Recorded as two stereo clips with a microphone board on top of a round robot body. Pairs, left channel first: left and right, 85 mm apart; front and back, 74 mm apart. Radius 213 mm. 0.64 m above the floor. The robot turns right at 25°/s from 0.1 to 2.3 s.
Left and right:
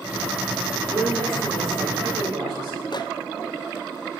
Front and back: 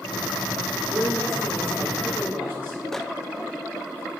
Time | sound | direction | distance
0.9 | a man speaking | 150° right | 3 m
2.9 | a microwave | 85° left | 0.6 m